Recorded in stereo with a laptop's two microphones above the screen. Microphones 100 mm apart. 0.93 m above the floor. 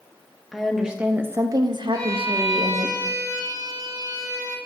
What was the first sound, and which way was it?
A woman speaking, centre (ahead or behind).